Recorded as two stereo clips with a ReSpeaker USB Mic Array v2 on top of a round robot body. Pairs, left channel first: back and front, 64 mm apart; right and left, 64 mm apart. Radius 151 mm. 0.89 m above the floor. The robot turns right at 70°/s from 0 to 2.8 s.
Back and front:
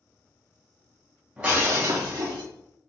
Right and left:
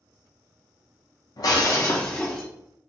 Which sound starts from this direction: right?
Breaking glass, at 1.4 s.